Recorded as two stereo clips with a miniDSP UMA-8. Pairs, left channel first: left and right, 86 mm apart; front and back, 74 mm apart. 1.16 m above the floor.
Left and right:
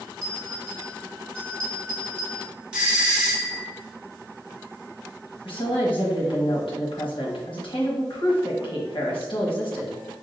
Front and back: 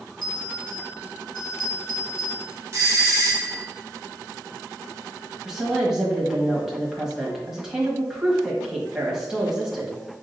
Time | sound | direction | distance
0.2 | a bell | 15° left | 2.0 m
2.7 | a doorbell | 165° right | 1.2 m
5.5 | a woman speaking | 95° left | 1.2 m